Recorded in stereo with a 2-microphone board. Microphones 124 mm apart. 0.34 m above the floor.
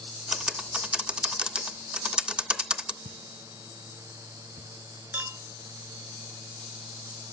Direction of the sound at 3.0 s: 65° right (ahead or behind).